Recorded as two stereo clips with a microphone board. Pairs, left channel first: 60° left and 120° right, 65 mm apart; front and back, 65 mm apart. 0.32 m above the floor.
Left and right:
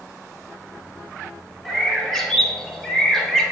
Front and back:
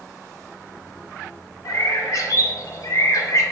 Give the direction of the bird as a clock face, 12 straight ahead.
1 o'clock.